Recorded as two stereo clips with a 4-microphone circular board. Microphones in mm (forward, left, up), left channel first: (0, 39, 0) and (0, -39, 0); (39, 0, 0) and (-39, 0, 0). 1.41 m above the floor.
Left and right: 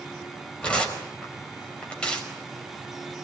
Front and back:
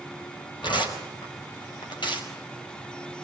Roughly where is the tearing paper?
Ahead.